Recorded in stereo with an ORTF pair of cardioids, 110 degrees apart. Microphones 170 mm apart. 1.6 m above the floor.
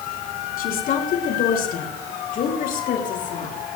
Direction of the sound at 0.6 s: 60° left.